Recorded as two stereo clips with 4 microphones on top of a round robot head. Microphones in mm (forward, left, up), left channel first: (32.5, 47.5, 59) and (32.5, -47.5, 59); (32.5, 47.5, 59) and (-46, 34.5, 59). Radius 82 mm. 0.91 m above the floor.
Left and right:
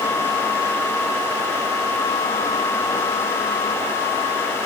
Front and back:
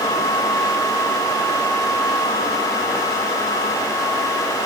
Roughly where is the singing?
No singing in this recording.